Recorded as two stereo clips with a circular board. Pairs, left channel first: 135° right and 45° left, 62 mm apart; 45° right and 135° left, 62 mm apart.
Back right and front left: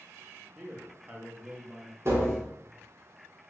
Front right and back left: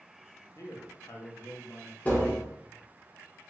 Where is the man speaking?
30° right, 0.7 m.